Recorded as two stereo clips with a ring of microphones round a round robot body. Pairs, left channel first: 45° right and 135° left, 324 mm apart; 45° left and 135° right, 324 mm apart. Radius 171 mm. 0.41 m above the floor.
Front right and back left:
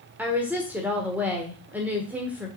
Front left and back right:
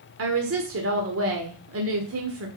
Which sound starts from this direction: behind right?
A woman speaking, at 0.2 s.